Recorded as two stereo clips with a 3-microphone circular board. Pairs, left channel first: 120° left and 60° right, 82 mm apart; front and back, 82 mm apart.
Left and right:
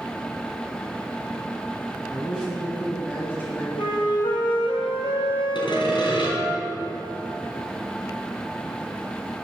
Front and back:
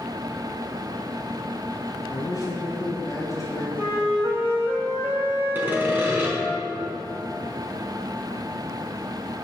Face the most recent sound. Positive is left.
turn(degrees=115)